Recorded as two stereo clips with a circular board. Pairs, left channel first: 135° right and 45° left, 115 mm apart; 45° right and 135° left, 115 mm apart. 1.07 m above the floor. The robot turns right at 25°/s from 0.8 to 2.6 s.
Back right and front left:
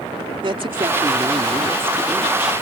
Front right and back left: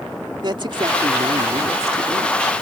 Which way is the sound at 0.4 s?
90° left.